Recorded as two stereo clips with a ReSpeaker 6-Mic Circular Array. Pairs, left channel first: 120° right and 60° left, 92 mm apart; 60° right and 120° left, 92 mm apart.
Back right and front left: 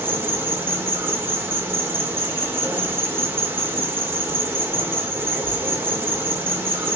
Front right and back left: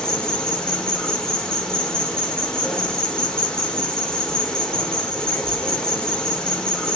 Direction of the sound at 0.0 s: 15° left.